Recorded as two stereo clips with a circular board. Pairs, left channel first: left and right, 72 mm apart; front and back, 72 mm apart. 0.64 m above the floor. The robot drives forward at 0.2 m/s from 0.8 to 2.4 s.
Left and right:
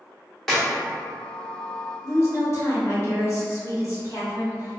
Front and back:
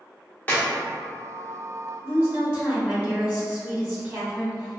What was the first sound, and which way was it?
A clap, 10° left.